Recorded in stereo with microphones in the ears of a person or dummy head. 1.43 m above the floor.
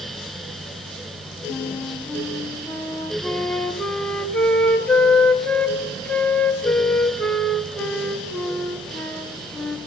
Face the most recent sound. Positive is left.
turn(degrees=10)  # may be behind; listen again after turning